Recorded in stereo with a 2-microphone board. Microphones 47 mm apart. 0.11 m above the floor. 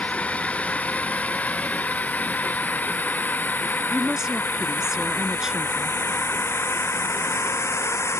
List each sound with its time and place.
0.0 s a drone: 30° left (ahead or behind); by 8.2 s 70° left (ahead or behind)
3.9 s a woman speaking: 10° right (ahead or behind)